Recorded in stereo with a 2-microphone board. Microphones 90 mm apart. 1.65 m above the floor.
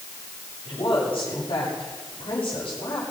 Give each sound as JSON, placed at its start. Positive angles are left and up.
{"t": 0.7, "sound": "a woman speaking", "side_deg": 85, "distance_m": 8.0}